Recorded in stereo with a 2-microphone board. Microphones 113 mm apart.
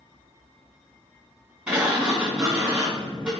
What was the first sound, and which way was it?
A sliding door, 15° right (ahead or behind).